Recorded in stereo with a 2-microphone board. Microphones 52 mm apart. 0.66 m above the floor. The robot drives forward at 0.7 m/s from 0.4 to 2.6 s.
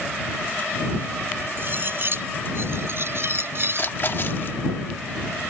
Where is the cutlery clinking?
45° right (ahead or behind); by 3.9 s 50° right (ahead or behind).